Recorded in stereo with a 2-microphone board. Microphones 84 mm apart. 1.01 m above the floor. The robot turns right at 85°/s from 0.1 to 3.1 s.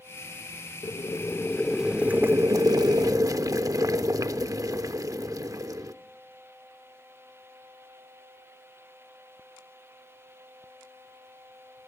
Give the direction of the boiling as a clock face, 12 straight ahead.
9 o'clock.